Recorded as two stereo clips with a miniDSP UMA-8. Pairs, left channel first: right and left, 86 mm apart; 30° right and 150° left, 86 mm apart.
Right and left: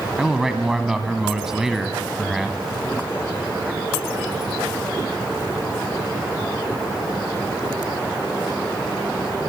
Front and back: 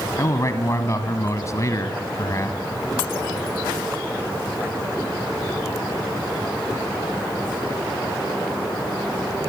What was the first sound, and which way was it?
A man speaking, 5° left.